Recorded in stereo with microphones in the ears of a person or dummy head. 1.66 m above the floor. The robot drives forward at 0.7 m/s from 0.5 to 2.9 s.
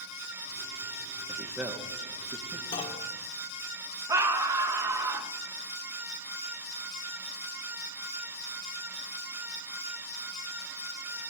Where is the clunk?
30° left (ahead or behind), 2 m; by 3.1 s 25° left (ahead or behind), 2 m.